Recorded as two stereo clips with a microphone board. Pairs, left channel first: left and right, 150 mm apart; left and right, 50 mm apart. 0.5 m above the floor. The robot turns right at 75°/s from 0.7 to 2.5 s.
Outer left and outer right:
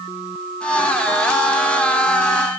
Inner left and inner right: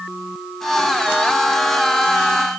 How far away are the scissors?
I don't hear scissors.